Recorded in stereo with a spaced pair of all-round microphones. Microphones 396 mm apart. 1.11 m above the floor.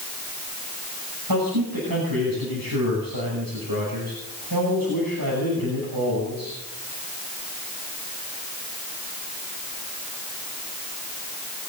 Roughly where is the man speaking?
Right.